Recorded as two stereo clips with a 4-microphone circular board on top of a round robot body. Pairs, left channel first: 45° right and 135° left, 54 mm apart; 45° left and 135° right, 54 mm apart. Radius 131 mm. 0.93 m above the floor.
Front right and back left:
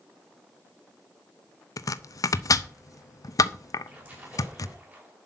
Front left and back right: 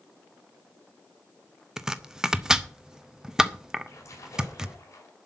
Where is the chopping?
55° right, 0.7 m.